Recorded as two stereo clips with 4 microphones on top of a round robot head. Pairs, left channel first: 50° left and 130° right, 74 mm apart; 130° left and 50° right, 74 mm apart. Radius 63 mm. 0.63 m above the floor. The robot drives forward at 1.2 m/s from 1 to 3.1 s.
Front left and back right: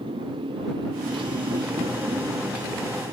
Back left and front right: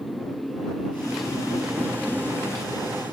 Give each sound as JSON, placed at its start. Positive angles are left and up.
{"t": 0.0, "sound": "a motorcycle", "azimuth_deg": -140}